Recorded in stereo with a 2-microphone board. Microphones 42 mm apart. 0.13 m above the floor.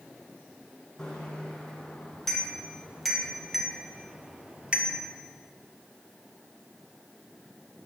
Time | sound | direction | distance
1.0 | a bicycle bell | 15° left (ahead or behind) | 4.5 m